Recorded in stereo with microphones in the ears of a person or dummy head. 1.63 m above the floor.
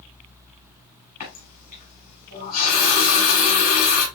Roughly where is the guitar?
I don't hear a guitar.